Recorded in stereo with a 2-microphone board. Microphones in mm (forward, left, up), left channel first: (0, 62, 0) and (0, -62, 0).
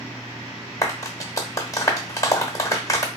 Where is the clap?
25° left (ahead or behind), 1.0 m.